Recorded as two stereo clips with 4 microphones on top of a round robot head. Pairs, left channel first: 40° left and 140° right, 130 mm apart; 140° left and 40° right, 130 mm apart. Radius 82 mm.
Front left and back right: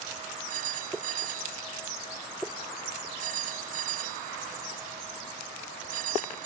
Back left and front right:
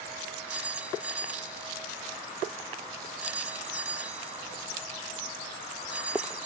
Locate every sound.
0.5 s a phone ringing: 120° right